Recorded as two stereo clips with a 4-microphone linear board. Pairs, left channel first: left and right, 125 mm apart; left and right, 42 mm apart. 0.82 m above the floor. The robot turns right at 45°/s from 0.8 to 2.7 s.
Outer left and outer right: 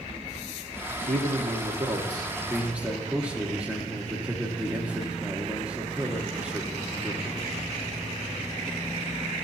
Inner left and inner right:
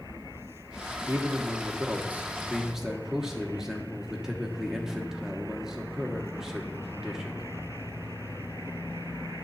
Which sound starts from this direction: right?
A man speaking, at 1.1 s.